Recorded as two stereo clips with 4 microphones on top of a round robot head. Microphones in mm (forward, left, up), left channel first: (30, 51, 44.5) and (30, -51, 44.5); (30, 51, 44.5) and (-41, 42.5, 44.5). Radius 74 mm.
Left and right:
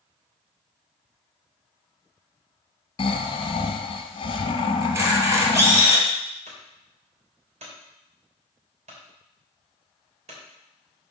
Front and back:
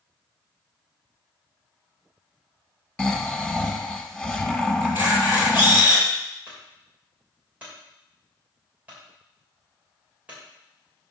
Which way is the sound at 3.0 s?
80° left.